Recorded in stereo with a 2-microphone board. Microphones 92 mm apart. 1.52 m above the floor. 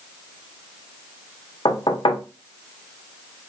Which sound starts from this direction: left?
Knocking, at 1.6 s.